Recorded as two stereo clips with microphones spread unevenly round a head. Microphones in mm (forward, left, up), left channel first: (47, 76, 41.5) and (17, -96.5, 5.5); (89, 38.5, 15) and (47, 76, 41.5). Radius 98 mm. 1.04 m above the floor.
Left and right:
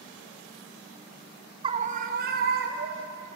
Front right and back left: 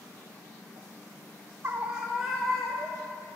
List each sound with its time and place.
1.6 s a scream: 145° right, 0.9 m; by 3.1 s 115° right, 2.5 m